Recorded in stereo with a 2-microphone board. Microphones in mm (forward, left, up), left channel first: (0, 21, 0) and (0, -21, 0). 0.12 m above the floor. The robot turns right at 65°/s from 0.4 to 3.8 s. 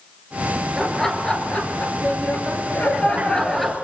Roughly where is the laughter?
Ahead.